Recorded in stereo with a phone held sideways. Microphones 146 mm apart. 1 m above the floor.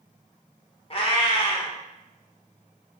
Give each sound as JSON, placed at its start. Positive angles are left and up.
{"t": 0.9, "sound": "a cat meowing", "side_deg": 40, "distance_m": 0.6}